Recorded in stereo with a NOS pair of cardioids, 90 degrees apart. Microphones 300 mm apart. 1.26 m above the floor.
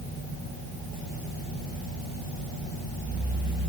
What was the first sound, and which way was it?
Only background noise.